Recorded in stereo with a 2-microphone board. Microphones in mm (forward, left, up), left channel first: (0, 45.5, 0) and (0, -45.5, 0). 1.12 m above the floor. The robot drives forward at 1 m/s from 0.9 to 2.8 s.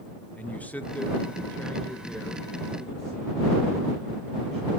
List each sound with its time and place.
0.4 s a man speaking: 15° left (ahead or behind), 0.6 m; by 4.7 s 5° left (ahead or behind), 1.7 m